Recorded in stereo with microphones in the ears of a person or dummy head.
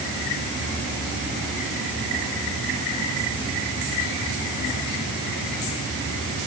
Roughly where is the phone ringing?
I don't hear a phone ringing.